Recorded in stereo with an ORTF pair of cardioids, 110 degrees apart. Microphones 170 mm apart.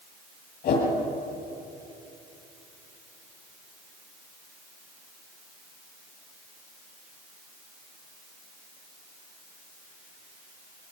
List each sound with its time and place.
0.6 s a whoosh: 60° left, 9.5 m